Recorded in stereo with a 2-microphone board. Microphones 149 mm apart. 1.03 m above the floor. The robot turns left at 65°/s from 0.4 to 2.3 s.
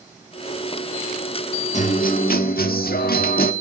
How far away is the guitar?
About 1.6 m.